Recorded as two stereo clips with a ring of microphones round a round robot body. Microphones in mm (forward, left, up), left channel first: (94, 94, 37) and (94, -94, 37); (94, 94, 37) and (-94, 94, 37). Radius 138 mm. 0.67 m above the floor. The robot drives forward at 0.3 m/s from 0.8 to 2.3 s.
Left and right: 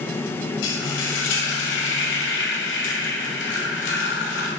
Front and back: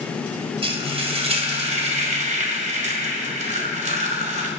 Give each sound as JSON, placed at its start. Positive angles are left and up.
{"t": 0.6, "sound": "frying", "azimuth_deg": 120, "distance_m": 2.5}